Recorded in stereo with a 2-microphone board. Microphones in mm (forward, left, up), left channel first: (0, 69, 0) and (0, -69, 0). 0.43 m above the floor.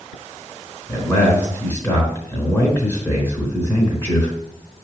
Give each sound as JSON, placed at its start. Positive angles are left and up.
{"t": 0.9, "sound": "a man speaking", "side_deg": 15, "distance_m": 3.5}